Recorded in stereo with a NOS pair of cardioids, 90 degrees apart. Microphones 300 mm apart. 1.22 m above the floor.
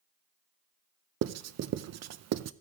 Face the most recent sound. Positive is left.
turn(degrees=-60)